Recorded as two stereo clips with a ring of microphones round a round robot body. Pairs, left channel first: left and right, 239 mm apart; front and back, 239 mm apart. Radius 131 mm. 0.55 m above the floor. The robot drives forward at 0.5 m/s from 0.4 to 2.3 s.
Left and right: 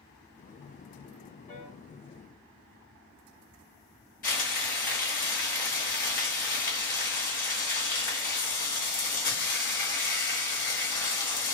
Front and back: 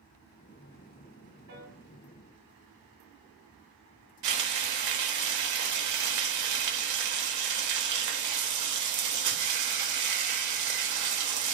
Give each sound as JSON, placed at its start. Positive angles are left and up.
{"t": 1.5, "sound": "a piano", "azimuth_deg": 135, "distance_m": 1.6}
{"t": 4.2, "sound": "frying", "azimuth_deg": 150, "distance_m": 0.7}